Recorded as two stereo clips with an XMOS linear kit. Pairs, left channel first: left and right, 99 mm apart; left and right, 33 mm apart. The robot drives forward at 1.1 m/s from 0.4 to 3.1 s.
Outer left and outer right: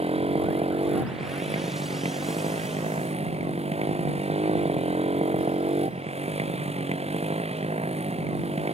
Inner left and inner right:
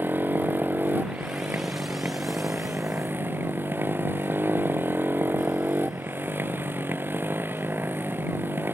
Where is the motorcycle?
75° right (ahead or behind); by 8.7 s 85° right.